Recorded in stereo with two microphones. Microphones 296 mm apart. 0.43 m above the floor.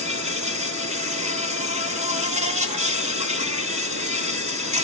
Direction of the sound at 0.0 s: 25° right (ahead or behind).